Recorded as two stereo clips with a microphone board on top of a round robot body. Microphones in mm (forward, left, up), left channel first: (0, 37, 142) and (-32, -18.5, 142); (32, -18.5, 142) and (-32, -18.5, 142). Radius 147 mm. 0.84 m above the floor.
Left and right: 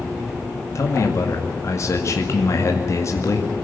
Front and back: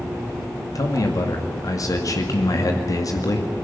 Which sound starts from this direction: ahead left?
A man speaking, at 0.8 s.